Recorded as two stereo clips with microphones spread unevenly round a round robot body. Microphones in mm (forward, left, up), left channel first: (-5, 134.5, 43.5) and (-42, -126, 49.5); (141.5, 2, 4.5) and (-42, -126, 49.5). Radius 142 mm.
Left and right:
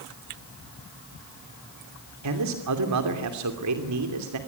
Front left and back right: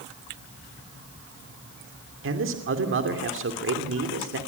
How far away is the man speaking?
About 2.5 m.